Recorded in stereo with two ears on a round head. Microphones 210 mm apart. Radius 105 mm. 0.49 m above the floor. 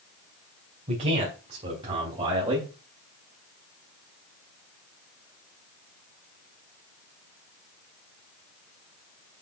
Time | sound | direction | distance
0.9 | a man speaking | 30° right (ahead or behind) | 3.5 m